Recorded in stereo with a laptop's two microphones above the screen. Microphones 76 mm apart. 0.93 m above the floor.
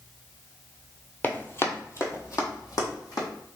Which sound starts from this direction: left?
Running footsteps, at 1.2 s.